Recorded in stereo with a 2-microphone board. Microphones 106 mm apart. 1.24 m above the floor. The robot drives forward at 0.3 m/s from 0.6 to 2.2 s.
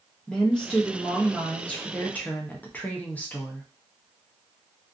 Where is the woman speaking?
10° left (ahead or behind), 1.0 m; by 3.6 s 15° left (ahead or behind), 0.6 m.